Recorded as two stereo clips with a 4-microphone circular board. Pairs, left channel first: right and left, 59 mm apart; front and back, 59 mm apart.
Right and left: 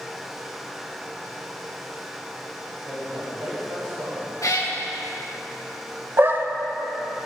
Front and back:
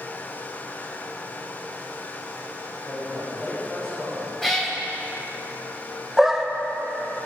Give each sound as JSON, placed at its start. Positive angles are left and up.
{"t": 2.9, "sound": "a man speaking", "azimuth_deg": 75, "distance_m": 3.5}
{"t": 4.4, "sound": "a cat meowing", "azimuth_deg": -85, "distance_m": 1.6}
{"t": 6.2, "sound": "a dog barking", "azimuth_deg": 100, "distance_m": 0.6}